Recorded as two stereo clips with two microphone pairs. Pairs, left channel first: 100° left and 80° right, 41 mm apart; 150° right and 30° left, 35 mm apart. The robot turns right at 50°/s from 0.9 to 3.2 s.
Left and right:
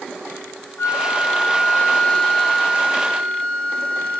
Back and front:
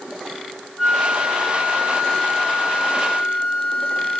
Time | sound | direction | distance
0.8 | a flute | 110° left | 6 m